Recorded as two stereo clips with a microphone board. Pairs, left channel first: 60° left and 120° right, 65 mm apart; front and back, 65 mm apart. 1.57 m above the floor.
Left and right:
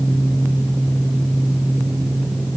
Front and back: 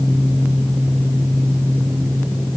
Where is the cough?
No cough in this recording.